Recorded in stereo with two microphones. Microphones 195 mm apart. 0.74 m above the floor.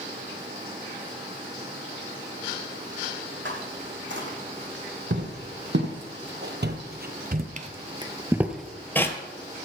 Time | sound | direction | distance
3.5 | footsteps | 70° right (ahead or behind) | 3 m